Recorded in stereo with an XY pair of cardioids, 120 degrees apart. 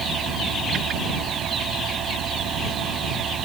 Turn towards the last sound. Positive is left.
turn(degrees=-55)